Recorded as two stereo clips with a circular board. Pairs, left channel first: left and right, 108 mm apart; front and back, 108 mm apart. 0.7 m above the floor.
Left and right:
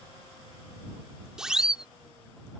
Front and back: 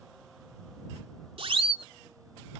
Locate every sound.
1.4 s a siren: 170° right